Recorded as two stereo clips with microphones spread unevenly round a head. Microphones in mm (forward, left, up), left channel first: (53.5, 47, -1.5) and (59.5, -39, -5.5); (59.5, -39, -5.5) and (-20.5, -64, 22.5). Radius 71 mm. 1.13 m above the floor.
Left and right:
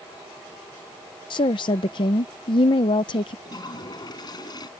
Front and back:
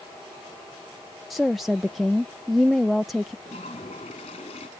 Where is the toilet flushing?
55° left.